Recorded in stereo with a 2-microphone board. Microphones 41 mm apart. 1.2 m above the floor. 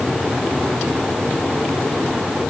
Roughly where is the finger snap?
No finger snap in this recording.